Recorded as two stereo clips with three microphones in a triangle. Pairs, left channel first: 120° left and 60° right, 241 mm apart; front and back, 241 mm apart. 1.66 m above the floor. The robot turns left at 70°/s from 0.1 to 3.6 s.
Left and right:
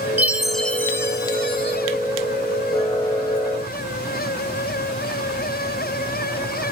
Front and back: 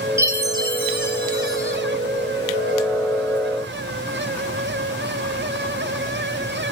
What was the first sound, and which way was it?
A chime, 130° right.